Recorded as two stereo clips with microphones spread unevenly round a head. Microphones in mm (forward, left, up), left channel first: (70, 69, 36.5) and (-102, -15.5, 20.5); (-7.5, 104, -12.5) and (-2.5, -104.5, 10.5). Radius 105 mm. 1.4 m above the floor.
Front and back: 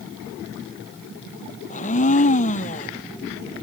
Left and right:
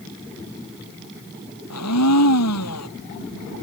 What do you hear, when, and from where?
1.7 s a blender: 75° left